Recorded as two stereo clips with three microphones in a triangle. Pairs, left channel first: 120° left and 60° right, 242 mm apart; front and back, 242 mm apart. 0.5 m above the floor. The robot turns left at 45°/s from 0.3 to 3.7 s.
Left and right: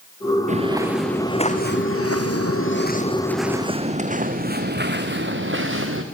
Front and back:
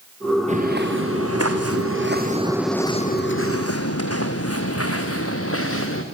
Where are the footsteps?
120° right, 3.5 m; by 6.0 s 30° right, 4 m.